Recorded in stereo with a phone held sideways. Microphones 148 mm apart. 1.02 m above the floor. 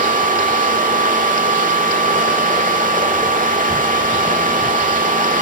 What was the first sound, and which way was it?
A fan, 65° right (ahead or behind).